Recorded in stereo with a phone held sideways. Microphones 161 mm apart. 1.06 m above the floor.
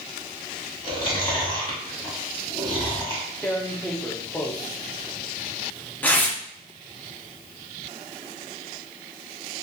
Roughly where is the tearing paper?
Centre.